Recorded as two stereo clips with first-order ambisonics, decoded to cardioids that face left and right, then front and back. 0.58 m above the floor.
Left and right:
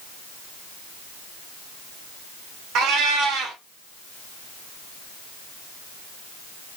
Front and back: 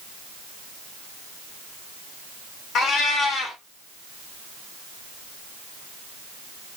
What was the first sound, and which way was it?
A cat meowing, 55° right.